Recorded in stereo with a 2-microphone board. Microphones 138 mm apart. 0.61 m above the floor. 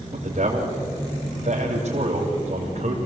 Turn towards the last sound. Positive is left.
turn(degrees=-55)  # may be behind; listen again after turning